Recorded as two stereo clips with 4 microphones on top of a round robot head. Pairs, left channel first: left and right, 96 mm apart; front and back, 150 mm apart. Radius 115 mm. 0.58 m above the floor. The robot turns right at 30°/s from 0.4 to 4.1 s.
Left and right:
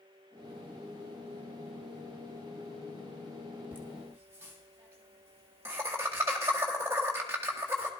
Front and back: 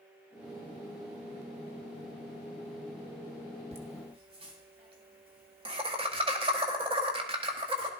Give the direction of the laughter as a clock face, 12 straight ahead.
5 o'clock.